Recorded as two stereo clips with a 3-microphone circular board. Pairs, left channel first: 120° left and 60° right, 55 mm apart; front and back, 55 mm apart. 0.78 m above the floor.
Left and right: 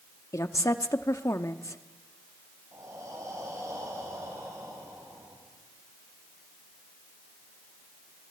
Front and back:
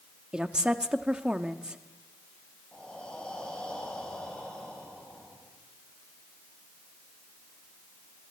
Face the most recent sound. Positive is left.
turn(degrees=-75)